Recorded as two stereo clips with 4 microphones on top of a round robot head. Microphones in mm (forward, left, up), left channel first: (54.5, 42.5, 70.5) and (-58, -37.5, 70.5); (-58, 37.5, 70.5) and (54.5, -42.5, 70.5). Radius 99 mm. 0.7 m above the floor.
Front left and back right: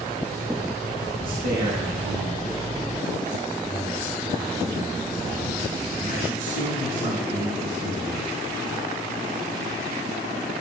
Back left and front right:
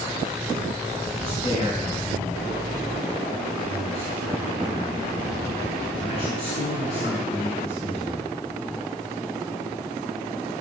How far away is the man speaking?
About 7 m.